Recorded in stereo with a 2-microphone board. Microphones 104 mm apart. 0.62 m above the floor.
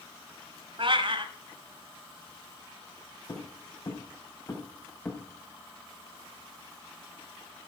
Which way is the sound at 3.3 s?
45° left (ahead or behind).